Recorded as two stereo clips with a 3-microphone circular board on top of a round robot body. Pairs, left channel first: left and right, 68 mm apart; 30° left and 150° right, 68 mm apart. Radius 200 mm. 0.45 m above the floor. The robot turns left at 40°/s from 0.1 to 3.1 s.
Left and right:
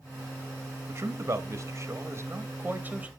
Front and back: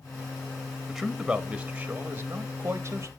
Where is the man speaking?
55° right, 1.3 m; by 3.1 s 145° right, 1.3 m.